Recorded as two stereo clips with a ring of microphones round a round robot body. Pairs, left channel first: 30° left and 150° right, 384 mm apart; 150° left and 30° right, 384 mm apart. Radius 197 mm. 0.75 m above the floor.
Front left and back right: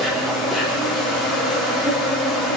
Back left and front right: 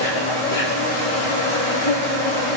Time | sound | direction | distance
0.0 | an insect | 120° left | 3 m